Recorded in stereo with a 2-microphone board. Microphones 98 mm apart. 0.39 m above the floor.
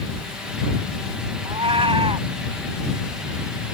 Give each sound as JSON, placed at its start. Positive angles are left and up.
{"t": 1.4, "sound": "a cat meowing", "side_deg": -75}